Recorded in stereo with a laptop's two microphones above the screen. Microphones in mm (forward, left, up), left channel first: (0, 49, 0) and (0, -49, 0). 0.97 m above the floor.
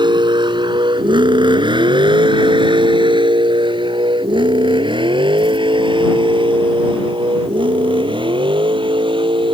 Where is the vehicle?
50° right (ahead or behind); by 9.6 s 55° right (ahead or behind).